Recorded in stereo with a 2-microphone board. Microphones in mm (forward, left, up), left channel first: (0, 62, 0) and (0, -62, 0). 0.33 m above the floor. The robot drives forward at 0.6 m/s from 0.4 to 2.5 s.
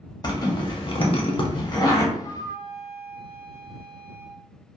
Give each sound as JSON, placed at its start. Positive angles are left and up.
{"t": 0.2, "sound": "a zipper", "side_deg": 35, "distance_m": 0.6}
{"t": 2.1, "sound": "a flute", "side_deg": 50, "distance_m": 0.5}